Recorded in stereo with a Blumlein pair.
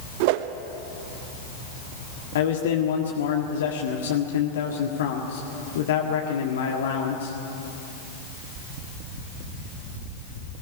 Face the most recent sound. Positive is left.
turn(degrees=60)